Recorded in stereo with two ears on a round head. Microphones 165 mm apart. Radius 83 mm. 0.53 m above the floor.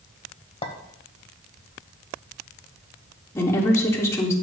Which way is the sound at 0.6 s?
35° left (ahead or behind).